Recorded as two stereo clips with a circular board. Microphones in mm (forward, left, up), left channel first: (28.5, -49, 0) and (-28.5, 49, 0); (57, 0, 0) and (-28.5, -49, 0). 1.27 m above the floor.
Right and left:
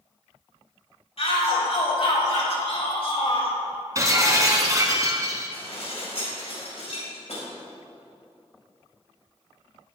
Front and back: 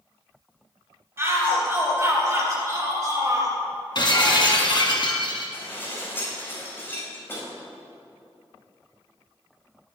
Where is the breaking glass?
60° left, 2.5 m.